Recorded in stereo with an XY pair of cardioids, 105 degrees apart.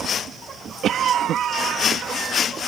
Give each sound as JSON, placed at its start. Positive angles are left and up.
{"t": 0.8, "sound": "a cough", "azimuth_deg": -65}